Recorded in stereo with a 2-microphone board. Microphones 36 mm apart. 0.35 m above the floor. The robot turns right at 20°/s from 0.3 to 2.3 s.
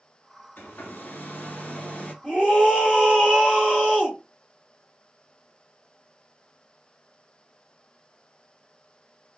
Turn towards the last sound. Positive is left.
turn(degrees=40)  # may be behind; listen again after turning